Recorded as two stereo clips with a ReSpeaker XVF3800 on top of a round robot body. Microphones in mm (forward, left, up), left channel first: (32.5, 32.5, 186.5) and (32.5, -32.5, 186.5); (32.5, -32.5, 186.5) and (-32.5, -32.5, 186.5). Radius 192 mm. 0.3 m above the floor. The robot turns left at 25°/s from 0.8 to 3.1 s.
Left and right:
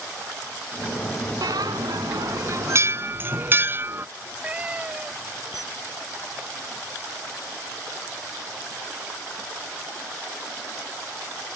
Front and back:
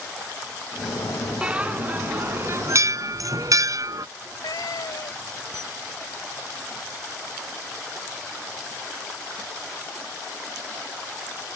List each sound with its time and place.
1.4 s a bell: 105° right; by 4.1 s 150° right
4.2 s a cat meowing: 20° right
5.5 s a camera shutter: 5° right